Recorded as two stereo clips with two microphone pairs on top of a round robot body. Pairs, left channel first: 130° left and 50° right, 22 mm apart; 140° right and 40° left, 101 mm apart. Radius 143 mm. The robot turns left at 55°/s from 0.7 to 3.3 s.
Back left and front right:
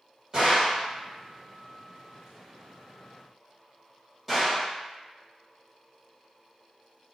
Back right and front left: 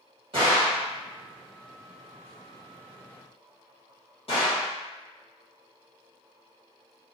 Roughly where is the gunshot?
Ahead.